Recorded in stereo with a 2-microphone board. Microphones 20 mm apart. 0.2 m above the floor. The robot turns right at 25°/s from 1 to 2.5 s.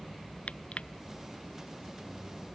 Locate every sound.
0.5 s crushing: 85° left